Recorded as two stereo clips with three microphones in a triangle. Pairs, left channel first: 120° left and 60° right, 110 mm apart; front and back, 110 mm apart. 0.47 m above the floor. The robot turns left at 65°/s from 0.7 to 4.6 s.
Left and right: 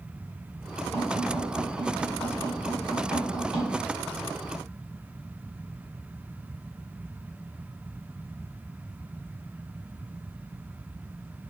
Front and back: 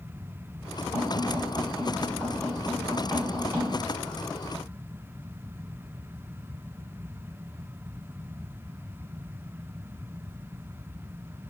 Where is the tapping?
25° left, 1.2 m; by 3.7 s 150° right, 1.2 m.